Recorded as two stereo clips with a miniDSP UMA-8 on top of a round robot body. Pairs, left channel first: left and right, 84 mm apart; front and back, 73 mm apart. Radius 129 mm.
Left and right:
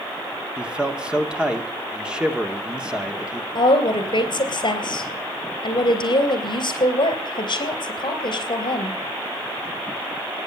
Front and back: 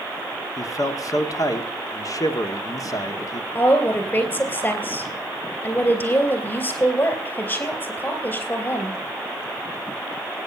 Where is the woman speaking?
65° left, 3.5 m.